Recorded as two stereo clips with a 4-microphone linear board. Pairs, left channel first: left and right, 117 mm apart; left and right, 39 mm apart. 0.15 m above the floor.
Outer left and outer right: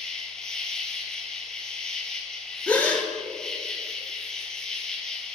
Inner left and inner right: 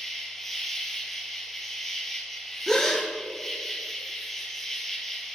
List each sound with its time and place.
0.0 s an insect: 5° left (ahead or behind), 0.9 m
2.7 s a gasp: 15° left (ahead or behind), 1.0 m